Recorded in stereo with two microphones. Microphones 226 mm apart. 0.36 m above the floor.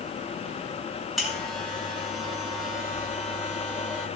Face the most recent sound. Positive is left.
turn(degrees=0)  # may be behind; listen again after turning